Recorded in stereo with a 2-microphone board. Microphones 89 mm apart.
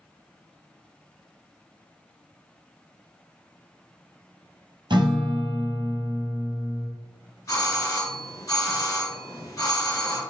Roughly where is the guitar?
Right.